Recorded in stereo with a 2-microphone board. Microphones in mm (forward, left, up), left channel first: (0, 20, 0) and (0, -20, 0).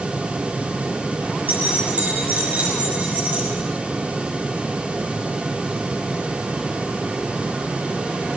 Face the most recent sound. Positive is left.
turn(degrees=-45)  # may be behind; listen again after turning